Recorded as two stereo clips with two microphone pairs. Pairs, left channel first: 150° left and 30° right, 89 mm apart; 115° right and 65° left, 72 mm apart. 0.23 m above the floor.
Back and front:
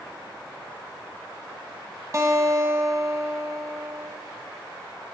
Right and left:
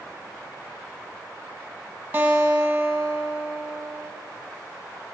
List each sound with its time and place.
2.1 s a guitar: 5° left, 0.8 m